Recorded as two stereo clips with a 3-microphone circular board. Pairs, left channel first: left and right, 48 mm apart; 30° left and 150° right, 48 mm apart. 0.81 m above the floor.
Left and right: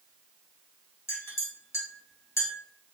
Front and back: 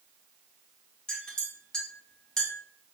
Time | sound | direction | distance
1.1 | a clink | 105° left | 1.8 m